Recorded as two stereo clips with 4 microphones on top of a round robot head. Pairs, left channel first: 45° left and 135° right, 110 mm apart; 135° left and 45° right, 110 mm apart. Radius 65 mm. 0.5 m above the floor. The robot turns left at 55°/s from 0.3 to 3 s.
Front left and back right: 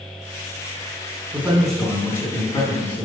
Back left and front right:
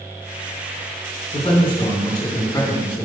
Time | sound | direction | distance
1.3 | a man speaking | 145° left | 1.9 m